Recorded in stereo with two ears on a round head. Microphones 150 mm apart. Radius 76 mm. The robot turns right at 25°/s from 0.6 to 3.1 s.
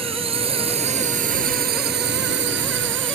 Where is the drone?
145° right; by 3.2 s 80° right.